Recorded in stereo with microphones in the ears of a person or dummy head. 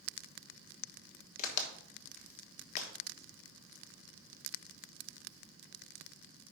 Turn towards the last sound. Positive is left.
turn(degrees=40)  # may be behind; listen again after turning